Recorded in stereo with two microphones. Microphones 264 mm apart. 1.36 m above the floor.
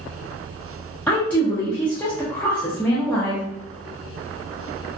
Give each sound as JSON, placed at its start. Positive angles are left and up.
{"t": 1.1, "sound": "a woman speaking", "side_deg": 5, "distance_m": 0.6}